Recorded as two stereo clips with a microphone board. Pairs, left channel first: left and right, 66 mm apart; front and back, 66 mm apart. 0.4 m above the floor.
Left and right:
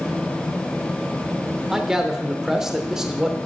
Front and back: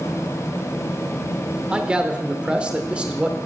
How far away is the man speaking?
About 0.8 m.